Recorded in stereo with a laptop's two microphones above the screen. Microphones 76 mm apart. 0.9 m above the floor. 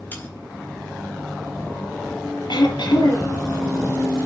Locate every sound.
0.1 s sawing: 25° left (ahead or behind), 4 m
2.5 s throat clearing: 75° left (ahead or behind), 5 m